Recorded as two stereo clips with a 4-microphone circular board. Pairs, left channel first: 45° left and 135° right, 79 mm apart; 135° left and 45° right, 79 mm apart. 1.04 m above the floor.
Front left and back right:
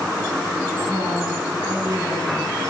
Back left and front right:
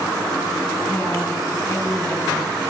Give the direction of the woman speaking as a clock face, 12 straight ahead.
6 o'clock.